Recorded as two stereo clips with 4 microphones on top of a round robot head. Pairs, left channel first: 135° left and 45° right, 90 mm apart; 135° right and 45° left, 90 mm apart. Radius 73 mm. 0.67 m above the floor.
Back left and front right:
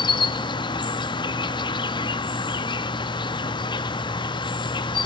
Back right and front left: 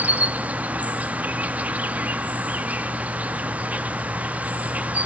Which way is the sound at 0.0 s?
115° left.